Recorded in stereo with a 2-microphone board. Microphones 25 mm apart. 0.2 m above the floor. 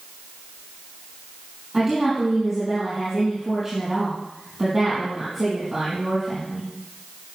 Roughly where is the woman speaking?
Centre.